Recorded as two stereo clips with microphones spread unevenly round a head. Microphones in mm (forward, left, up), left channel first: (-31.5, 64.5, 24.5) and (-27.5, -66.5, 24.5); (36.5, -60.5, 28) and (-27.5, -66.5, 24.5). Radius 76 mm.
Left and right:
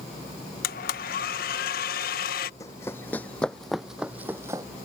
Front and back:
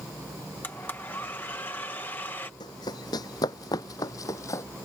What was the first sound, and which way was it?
A blender, 80° left.